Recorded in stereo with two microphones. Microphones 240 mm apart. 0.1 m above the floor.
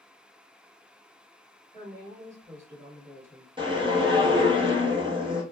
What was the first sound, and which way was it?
A woman speaking, 10° right (ahead or behind).